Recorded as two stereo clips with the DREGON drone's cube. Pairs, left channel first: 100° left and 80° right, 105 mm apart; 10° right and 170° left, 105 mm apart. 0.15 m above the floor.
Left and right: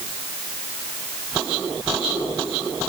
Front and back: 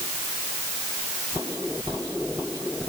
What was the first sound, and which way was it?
Only background noise.